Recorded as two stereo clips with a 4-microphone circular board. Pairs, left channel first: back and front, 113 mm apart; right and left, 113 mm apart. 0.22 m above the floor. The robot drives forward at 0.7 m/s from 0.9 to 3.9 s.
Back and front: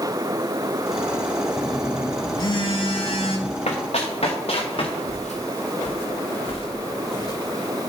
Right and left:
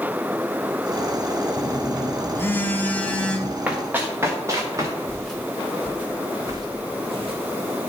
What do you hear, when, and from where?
1.6 s a phone buzzing: 80° right, 0.6 m; by 3.6 s 170° right, 1.5 m
3.7 s running footsteps: 165° left, 1.7 m; by 4.9 s 150° left, 2.5 m
5.1 s footsteps: 170° right, 2.5 m; by 7.4 s 125° left, 2.5 m